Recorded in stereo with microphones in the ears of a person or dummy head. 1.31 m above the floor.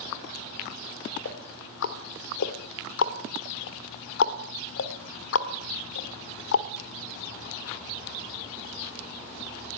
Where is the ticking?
65° left (ahead or behind), 1.7 m.